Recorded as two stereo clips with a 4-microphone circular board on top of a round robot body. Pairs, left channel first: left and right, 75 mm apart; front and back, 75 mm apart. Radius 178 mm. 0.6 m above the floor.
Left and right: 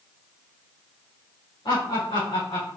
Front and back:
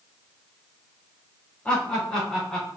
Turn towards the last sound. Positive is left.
turn(degrees=85)